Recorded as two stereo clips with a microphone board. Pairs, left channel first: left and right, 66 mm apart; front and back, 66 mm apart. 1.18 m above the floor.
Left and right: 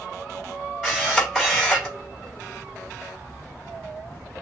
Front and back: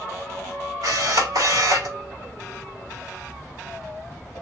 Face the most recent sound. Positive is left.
turn(degrees=-175)